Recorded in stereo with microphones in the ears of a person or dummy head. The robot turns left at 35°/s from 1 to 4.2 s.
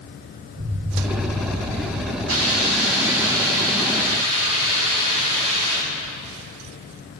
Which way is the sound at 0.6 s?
45° right.